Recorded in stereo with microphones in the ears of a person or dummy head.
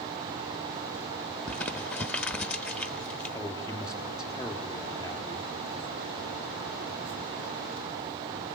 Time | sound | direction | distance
1.5 | crumpling | 10° left (ahead or behind) | 0.9 m
3.3 | a man speaking | 10° left (ahead or behind) | 3.5 m